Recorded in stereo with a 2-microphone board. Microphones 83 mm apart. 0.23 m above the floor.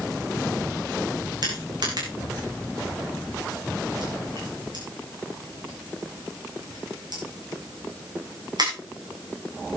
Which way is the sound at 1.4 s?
60° right (ahead or behind).